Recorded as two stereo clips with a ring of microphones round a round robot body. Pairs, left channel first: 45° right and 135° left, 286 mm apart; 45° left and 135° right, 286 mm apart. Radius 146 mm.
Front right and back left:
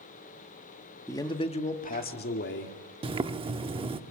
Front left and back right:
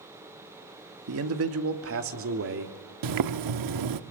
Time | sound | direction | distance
1.1 | a man speaking | 125° right | 1.7 m
3.0 | boiling | 150° right | 0.9 m